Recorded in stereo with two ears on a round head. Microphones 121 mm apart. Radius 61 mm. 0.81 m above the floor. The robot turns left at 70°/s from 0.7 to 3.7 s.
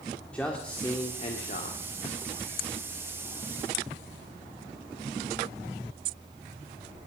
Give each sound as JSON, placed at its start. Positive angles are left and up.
{"t": 0.3, "sound": "a man speaking", "azimuth_deg": 170, "distance_m": 1.7}